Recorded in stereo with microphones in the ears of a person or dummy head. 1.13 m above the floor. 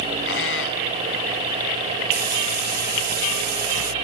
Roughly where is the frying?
Right.